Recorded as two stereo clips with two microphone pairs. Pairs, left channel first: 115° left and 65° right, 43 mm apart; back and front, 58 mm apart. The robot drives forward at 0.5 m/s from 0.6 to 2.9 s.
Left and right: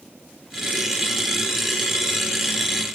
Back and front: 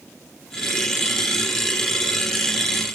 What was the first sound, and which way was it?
Only background noise.